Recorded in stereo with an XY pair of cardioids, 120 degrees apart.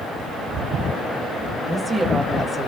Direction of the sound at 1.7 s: 10° right.